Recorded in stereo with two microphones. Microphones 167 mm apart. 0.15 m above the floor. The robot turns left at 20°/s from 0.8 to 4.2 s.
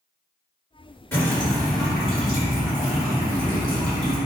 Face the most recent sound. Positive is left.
turn(degrees=-40)